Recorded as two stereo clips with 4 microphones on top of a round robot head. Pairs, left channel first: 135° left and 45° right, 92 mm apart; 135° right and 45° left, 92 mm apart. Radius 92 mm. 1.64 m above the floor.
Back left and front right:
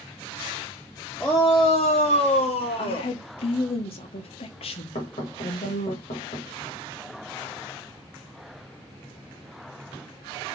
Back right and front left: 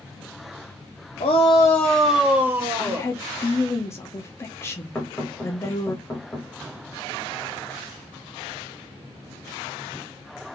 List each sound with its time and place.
1.2 s a shout: 150° right, 0.7 m; by 3.1 s 105° left, 1.4 m
2.8 s a woman speaking: 160° left, 1.0 m
5.0 s knocking: 155° left, 1.4 m